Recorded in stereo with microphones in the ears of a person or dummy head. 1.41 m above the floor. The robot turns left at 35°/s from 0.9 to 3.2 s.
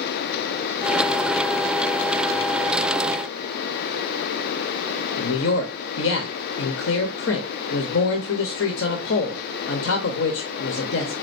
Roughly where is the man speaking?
Left.